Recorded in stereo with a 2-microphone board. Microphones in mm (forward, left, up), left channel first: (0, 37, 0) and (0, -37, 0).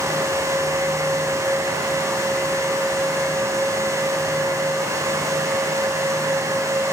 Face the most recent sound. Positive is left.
No sound to turn to.